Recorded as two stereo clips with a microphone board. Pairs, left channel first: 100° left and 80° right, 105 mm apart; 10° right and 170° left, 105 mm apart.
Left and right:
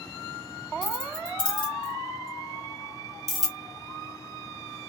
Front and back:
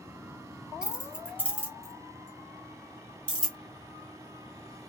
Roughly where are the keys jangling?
Left.